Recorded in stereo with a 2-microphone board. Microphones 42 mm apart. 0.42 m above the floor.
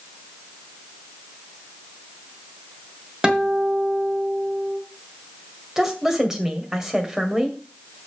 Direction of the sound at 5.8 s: 10° right (ahead or behind).